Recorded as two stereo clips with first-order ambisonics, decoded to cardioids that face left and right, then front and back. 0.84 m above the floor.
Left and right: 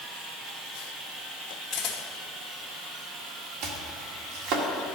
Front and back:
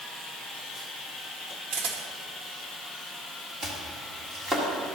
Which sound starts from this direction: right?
Chopping, at 3.6 s.